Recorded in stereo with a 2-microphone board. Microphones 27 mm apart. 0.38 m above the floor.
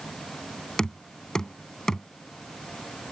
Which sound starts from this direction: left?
Knocking, at 0.8 s.